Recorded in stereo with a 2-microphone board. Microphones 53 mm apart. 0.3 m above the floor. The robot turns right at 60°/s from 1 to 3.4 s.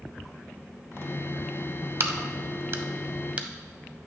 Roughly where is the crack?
Right.